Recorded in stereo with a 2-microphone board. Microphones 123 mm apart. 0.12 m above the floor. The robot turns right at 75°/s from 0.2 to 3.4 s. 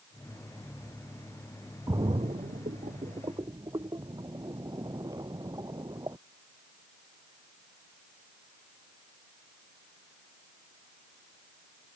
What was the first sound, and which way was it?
A splash, 30° right (ahead or behind).